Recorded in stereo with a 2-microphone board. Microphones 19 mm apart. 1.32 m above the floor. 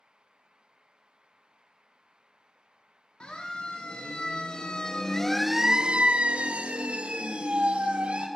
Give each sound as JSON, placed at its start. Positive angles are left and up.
{"t": 3.2, "sound": "a siren", "side_deg": 65, "distance_m": 3.0}